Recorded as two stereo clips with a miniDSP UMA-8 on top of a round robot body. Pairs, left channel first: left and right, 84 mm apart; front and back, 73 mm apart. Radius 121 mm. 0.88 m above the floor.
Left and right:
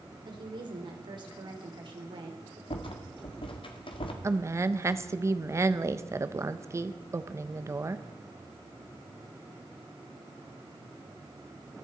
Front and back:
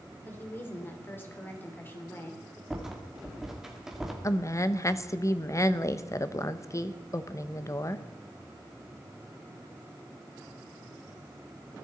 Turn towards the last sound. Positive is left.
turn(degrees=-40)